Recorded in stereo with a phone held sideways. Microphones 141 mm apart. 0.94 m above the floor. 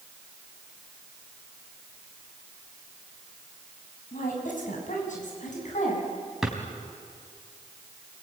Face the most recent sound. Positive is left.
turn(degrees=0)  # may be behind; listen again after turning